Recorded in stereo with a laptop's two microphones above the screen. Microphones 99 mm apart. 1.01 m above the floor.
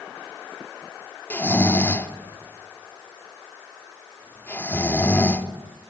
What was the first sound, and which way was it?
Snoring, 20° left (ahead or behind).